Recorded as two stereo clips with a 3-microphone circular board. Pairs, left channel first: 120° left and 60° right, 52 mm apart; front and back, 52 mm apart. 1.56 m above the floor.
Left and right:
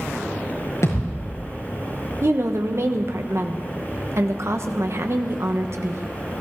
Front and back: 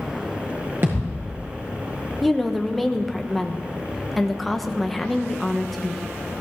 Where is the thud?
135° left, 6 m.